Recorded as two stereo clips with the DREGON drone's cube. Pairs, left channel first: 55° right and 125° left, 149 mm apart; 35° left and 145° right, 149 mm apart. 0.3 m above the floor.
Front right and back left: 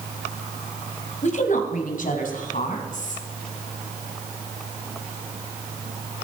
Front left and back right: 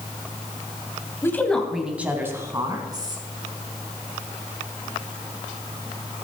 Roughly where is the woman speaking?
Ahead right.